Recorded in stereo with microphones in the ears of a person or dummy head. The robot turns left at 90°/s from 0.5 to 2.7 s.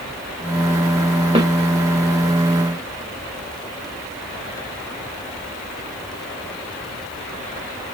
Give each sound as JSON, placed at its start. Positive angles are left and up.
{"t": 1.4, "sound": "a snare drum", "side_deg": -25, "distance_m": 1.2}